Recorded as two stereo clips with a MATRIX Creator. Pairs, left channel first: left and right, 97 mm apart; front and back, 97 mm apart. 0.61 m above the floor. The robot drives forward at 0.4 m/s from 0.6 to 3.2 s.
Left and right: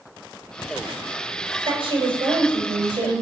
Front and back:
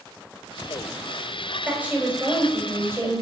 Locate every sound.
1.6 s a woman speaking: 105° right, 3.5 m; by 3.2 s 115° right, 4 m